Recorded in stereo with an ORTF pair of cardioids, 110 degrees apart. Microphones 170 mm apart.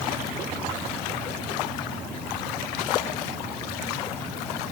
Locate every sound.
Only background noise.